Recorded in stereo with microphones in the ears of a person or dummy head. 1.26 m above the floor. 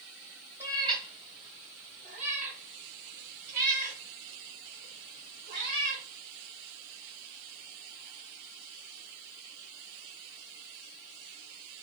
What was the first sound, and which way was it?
A cat meowing, 15° right (ahead or behind).